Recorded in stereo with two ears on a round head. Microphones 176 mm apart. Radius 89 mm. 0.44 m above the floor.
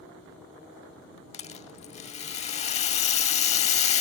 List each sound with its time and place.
1.3 s a rattle: 35° left (ahead or behind)